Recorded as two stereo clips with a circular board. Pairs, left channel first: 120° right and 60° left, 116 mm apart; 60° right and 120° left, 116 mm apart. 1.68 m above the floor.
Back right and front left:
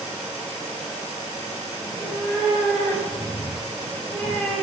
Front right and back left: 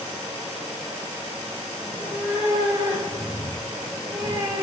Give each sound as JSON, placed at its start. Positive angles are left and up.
{"t": 1.8, "sound": "a cat meowing", "azimuth_deg": 180, "distance_m": 3.0}